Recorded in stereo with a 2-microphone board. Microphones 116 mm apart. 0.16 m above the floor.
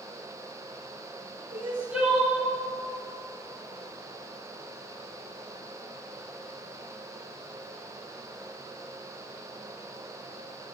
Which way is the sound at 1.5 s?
10° right (ahead or behind).